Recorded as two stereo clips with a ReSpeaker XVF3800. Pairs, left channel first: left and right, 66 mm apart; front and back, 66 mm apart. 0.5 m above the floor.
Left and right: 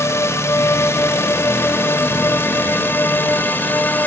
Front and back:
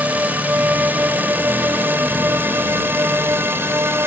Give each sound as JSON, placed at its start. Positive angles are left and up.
{"t": 0.0, "sound": "a drone", "azimuth_deg": 120}